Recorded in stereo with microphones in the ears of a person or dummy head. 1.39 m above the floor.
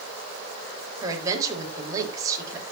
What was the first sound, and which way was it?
A woman speaking, 30° right (ahead or behind).